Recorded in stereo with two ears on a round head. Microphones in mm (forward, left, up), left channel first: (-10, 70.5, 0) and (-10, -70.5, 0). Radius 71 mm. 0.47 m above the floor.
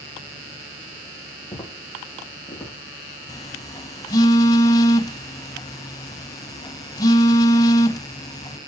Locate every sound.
1.5 s footsteps: 10° left (ahead or behind), 9.5 m
3.3 s a phone buzzing: 25° left (ahead or behind), 1.3 m